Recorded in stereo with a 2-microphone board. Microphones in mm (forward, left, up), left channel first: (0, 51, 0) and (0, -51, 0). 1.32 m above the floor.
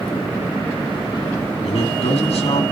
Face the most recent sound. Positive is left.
turn(degrees=85)